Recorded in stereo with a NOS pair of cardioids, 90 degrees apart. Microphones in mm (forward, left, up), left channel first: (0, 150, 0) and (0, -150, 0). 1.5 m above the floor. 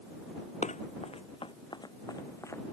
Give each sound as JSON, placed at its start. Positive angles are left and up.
{"t": 0.6, "sound": "running footsteps", "azimuth_deg": 25}